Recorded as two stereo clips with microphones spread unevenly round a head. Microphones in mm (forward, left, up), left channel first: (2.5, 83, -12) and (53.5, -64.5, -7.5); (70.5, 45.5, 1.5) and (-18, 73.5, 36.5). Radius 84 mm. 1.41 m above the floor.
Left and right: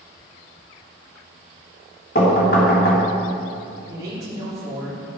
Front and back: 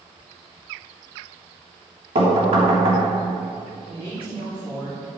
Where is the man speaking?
140° right, 4 m.